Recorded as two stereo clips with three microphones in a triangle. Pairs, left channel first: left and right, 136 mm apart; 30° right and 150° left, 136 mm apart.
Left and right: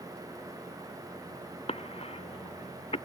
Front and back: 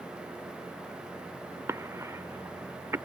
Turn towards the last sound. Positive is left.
turn(degrees=90)